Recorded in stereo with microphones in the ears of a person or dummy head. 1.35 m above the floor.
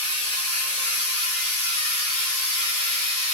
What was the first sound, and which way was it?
A machine running, 15° right (ahead or behind).